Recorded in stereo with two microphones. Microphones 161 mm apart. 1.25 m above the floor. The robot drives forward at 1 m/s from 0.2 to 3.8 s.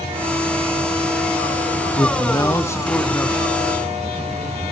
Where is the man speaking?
25° left (ahead or behind), 0.6 m; by 4.6 s 5° left (ahead or behind), 1.8 m.